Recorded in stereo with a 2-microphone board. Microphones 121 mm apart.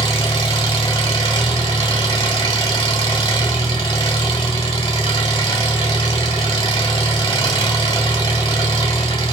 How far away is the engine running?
About 1.5 m.